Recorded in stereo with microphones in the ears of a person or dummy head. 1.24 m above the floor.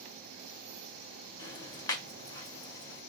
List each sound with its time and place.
1.4 s ticking: 25° left (ahead or behind), 1.9 m